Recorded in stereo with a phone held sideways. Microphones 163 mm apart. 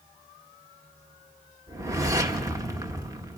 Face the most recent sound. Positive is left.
turn(degrees=-20)  # may be behind; listen again after turning